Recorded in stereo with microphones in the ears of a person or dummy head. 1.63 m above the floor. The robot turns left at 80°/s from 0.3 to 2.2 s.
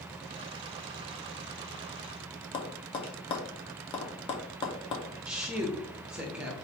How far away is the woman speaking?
About 0.9 m.